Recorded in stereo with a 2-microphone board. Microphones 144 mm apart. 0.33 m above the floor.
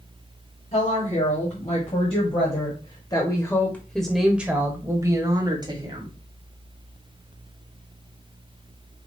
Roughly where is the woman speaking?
Left.